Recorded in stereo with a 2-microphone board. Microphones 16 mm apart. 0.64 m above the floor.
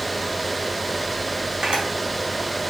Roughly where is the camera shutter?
Right.